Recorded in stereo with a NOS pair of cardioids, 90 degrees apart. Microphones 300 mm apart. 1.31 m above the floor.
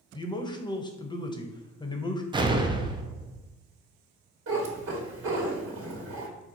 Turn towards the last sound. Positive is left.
turn(degrees=-45)